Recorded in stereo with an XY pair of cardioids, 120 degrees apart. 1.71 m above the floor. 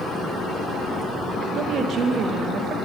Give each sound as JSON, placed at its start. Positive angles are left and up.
{"t": 1.6, "sound": "a woman speaking", "azimuth_deg": -55, "distance_m": 0.6}